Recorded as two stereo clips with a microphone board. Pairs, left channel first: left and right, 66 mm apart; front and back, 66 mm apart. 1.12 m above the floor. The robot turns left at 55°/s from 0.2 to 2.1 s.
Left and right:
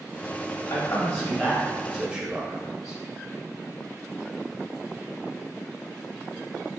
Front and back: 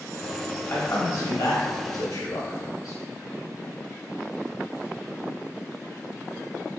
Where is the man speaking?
65° left, 1.2 m; by 3.0 s 10° right, 1.2 m.